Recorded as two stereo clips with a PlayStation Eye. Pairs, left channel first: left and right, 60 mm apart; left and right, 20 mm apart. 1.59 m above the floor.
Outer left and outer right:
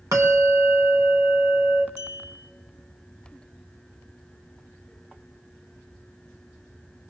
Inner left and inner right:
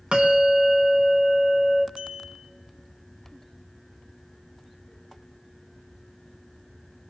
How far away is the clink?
About 3 m.